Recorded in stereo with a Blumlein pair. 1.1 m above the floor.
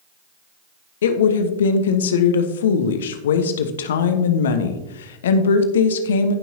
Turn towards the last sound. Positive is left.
turn(degrees=60)